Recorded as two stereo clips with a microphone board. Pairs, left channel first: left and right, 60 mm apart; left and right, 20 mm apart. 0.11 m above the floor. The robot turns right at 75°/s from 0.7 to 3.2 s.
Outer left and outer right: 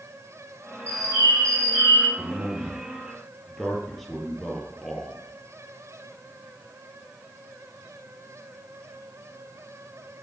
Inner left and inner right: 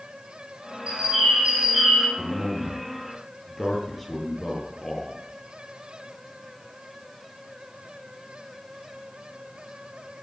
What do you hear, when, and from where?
0.9 s a bird: 120° right, 3 m; by 2.1 s 30° right, 3 m
2.2 s a man speaking: 75° right, 3 m; by 5.2 s 5° left, 3 m